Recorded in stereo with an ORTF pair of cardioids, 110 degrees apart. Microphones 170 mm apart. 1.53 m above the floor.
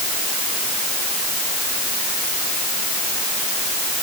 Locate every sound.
Only background noise.